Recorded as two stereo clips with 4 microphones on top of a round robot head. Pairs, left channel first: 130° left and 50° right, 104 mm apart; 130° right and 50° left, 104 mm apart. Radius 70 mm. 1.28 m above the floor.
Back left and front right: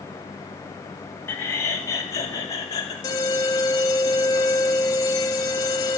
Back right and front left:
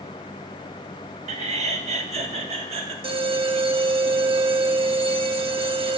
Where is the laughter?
65° left, 1.8 m; by 2.9 s 75° left, 3 m.